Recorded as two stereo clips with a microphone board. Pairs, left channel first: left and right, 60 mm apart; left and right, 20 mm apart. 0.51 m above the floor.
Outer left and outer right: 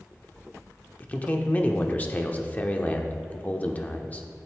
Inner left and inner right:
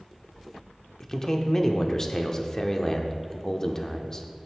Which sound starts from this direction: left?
A man speaking, at 1.0 s.